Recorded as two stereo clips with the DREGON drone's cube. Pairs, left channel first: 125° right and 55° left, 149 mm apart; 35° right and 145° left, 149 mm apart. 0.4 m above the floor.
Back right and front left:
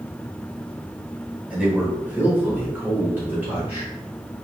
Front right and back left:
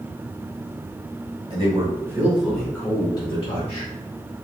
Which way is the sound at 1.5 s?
135° left.